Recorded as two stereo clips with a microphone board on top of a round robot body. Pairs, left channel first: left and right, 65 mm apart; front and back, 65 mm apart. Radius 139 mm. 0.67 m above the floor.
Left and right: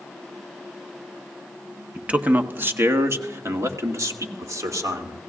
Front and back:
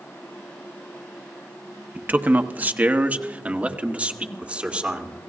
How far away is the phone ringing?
No phone ringing in this recording.